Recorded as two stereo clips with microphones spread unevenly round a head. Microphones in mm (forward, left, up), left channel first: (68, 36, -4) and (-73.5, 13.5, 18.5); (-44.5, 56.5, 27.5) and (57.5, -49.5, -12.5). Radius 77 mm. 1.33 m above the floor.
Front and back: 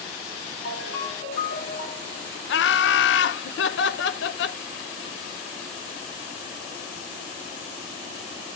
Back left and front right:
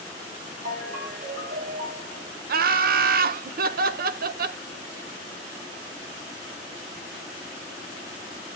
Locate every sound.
0.7 s a ringtone: 10° right, 6 m
2.5 s laughter: 15° right, 0.8 m